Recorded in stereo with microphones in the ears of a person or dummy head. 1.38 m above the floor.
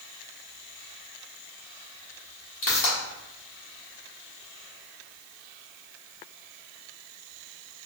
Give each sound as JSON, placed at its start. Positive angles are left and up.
{"t": 2.6, "sound": "a pop", "side_deg": 35, "distance_m": 1.3}